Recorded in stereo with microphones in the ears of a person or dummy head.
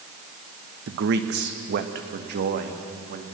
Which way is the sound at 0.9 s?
60° right (ahead or behind).